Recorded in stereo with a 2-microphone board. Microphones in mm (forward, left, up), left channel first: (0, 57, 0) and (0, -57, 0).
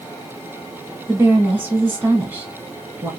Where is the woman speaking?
20° right (ahead or behind), 1.7 m.